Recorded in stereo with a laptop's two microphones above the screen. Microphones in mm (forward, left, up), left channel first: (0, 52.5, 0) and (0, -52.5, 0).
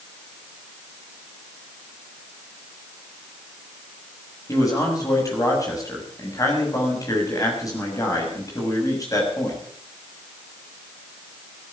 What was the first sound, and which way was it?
A man speaking, 30° left (ahead or behind).